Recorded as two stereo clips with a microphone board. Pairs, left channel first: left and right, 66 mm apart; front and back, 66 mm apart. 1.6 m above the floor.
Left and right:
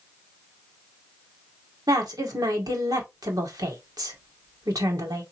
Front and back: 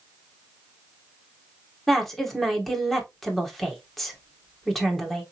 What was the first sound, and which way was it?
A woman speaking, 85° right.